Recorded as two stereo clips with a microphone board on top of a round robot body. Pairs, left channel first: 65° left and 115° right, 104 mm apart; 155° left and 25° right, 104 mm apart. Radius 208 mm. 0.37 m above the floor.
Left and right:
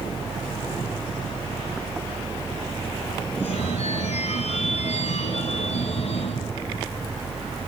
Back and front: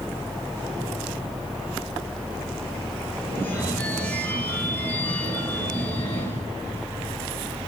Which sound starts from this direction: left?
A phone ringing, at 3.3 s.